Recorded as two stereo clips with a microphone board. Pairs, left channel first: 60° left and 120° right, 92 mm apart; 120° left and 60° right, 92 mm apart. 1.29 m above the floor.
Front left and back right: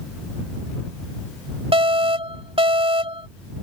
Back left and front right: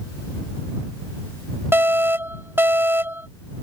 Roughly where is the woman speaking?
No woman speaking in this recording.